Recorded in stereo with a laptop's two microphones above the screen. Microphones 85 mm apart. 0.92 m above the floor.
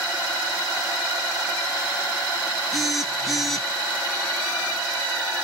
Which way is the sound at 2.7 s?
Centre (ahead or behind).